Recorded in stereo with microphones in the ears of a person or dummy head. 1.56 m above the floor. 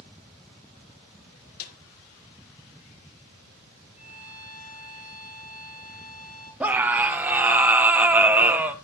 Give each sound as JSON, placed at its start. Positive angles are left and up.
{"t": 1.6, "sound": "a snare drum", "side_deg": 50, "distance_m": 1.5}
{"t": 4.0, "sound": "a violin", "side_deg": 35, "distance_m": 6.5}
{"t": 6.6, "sound": "a scream", "side_deg": -15, "distance_m": 1.0}